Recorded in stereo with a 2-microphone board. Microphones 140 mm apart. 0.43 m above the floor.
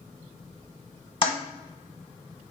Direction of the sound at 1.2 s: 35° left (ahead or behind).